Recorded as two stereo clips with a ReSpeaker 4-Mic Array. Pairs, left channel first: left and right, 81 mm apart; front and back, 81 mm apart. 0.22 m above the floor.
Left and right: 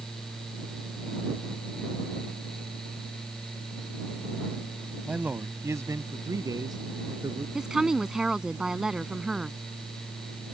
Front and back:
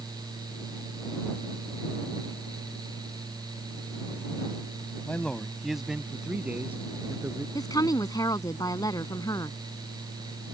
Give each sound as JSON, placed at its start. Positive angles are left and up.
{"t": 5.0, "sound": "a man speaking", "azimuth_deg": -35}
{"t": 7.5, "sound": "a woman speaking", "azimuth_deg": -10}